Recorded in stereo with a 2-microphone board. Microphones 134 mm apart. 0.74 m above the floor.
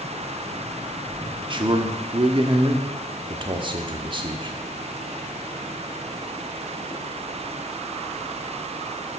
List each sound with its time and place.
1.5 s a man speaking: 40° right (ahead or behind), 1.0 m